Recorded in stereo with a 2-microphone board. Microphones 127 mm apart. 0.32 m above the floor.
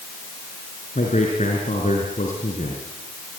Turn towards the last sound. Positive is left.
turn(degrees=75)  # may be behind; listen again after turning